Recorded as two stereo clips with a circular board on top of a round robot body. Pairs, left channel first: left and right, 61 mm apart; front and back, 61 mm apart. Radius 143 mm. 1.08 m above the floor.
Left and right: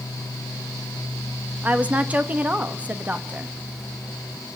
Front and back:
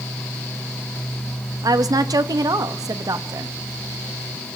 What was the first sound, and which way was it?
A woman speaking, 160° right.